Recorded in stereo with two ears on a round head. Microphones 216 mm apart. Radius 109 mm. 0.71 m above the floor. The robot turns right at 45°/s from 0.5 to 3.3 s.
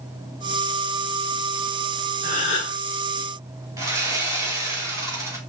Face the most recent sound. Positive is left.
turn(degrees=-15)  # may be behind; listen again after turning